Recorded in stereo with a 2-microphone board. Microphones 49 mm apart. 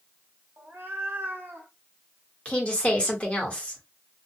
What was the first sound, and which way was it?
A cat meowing, 40° right (ahead or behind).